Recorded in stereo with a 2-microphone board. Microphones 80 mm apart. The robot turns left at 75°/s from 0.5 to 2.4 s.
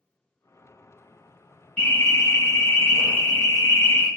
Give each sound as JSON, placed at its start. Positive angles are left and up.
{"t": 1.8, "sound": "an alarm", "azimuth_deg": 150, "distance_m": 1.7}